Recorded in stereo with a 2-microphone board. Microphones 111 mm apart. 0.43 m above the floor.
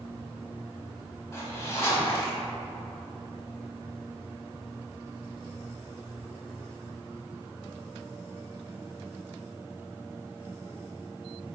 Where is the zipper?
25° left (ahead or behind), 0.9 m.